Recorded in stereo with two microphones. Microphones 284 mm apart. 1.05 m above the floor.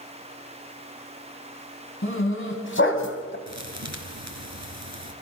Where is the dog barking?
45° left (ahead or behind), 4 m.